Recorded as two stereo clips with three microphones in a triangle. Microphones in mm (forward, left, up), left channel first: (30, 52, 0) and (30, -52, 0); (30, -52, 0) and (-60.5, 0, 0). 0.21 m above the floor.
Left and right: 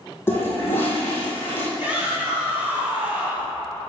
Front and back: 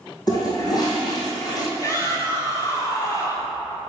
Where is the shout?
35° right, 1.8 m.